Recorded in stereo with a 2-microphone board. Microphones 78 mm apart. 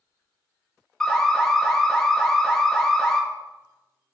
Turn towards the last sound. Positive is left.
turn(degrees=10)  # may be behind; listen again after turning